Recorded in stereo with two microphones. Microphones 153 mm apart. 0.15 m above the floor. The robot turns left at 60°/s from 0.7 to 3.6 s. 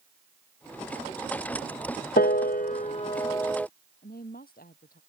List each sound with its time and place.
2.2 s a piano: 85° left; by 3.7 s 5° left (ahead or behind)
4.0 s a woman speaking: 75° left (ahead or behind)